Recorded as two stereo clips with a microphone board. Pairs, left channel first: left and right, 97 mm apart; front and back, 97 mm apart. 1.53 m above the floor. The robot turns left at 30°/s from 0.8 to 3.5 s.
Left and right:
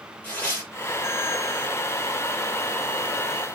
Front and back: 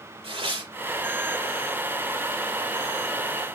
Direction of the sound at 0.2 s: 160° left.